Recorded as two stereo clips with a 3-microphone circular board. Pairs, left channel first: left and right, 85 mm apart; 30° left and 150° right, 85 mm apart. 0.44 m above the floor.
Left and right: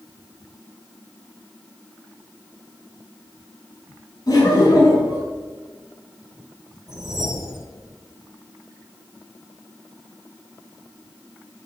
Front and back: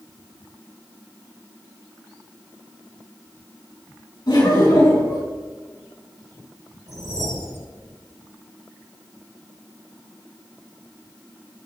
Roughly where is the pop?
No pop in this recording.